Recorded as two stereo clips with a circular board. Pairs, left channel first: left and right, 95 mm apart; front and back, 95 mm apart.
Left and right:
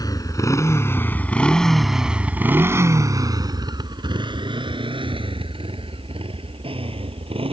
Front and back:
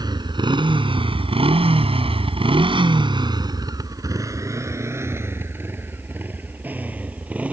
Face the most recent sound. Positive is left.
turn(degrees=-105)